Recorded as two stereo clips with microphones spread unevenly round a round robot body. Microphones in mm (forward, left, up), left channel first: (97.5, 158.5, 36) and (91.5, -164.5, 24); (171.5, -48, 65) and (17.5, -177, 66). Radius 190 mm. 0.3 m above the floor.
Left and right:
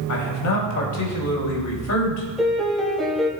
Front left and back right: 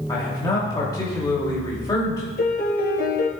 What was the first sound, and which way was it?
A man speaking, 110° left.